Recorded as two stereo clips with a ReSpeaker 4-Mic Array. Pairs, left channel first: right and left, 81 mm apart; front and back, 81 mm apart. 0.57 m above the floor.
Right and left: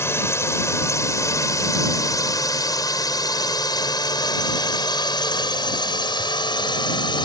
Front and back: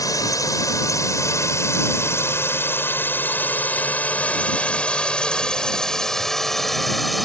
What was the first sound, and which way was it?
A drone, 35° right.